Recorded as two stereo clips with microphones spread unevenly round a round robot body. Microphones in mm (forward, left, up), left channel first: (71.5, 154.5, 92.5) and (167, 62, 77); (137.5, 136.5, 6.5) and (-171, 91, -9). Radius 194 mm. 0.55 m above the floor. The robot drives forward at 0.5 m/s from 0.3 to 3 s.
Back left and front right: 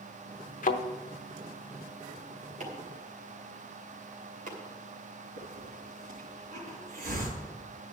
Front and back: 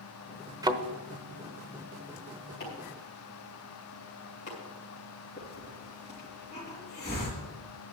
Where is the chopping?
60° right, 2.5 m; by 4.6 s 65° right, 2.5 m.